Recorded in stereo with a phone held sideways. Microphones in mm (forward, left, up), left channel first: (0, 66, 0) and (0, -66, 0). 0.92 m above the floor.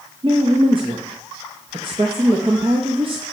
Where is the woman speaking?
40° right (ahead or behind), 0.8 m.